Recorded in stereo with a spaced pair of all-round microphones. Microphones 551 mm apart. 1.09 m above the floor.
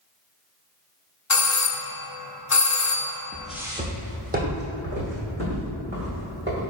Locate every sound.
1.3 s a doorbell: 30° left (ahead or behind), 0.5 m
3.3 s footsteps: 5° left (ahead or behind), 1.1 m; by 6.6 s 25° right (ahead or behind), 4.5 m